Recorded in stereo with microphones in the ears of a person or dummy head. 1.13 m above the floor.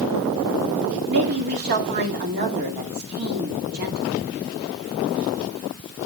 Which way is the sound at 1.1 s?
50° right (ahead or behind).